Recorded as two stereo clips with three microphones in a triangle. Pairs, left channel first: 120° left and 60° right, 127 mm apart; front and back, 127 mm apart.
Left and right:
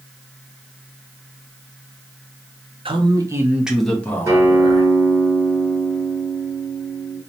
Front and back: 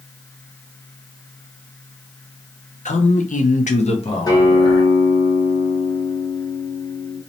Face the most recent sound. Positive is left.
turn(degrees=-20)